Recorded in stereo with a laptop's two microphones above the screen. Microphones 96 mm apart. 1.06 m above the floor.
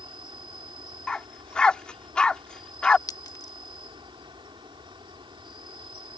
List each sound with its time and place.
0.0 s an insect: 60° right (ahead or behind)
1.1 s a dog barking: 10° left (ahead or behind)
3.1 s a clink: 40° left (ahead or behind)